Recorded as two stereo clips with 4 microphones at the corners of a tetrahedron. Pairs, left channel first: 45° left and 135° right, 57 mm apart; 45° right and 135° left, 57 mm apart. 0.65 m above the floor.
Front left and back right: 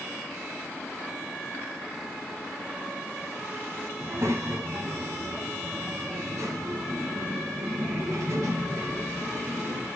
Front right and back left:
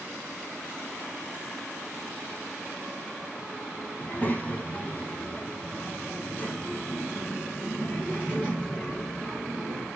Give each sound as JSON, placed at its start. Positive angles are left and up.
{"t": 4.0, "sound": "a child speaking", "azimuth_deg": -105, "distance_m": 2.5}